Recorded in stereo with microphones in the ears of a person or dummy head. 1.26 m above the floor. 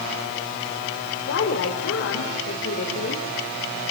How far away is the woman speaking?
About 3.5 m.